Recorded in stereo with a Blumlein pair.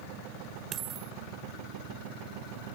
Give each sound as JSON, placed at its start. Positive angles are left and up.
{"t": 0.7, "sound": "a dropped coin", "azimuth_deg": -25}